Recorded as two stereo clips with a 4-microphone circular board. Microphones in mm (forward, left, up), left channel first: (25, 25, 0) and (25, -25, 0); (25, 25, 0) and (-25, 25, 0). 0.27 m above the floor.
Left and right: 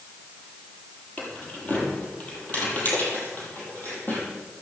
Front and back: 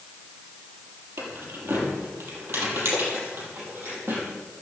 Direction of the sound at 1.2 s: 155° left.